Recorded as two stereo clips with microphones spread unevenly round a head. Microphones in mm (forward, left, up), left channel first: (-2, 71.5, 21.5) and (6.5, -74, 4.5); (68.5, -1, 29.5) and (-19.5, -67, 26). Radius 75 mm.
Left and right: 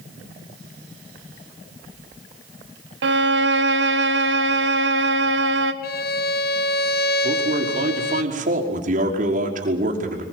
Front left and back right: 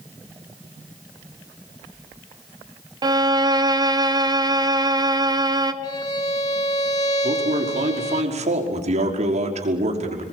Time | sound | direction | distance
3.0 | a violin | 90° right | 1.6 m
5.8 | a violin | 100° left | 1.2 m
7.2 | a man speaking | 125° right | 5.5 m